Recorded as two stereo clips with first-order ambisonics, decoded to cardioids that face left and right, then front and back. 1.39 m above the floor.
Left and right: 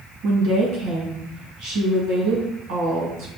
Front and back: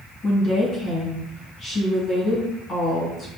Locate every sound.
0.2 s a woman speaking: 65° right, 1.6 m